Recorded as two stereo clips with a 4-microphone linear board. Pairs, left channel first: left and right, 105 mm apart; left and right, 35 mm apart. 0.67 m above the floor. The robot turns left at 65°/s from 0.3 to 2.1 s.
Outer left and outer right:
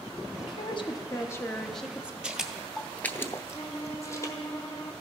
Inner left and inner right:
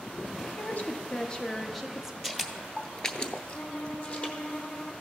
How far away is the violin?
About 1.2 m.